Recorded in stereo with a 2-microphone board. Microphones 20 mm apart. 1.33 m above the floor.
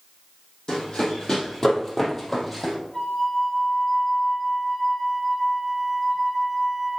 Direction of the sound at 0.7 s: 45° left (ahead or behind).